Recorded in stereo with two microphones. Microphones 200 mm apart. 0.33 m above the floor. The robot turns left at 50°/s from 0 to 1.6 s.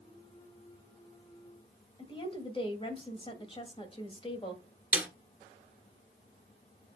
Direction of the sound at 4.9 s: 10° right (ahead or behind).